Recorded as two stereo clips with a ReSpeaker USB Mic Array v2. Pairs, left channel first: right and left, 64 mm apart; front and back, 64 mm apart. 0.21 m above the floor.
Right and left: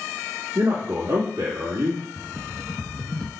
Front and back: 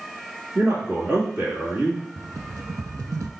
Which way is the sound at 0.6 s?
115° left.